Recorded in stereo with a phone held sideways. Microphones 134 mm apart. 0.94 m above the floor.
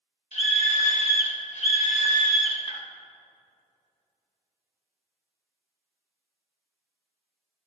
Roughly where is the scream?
Left.